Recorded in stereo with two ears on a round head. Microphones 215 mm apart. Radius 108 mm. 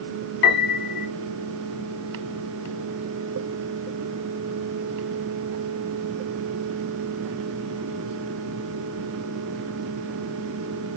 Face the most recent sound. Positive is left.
turn(degrees=50)  # may be behind; listen again after turning